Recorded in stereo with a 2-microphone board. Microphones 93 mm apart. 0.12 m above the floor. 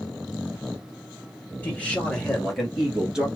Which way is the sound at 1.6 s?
15° left (ahead or behind).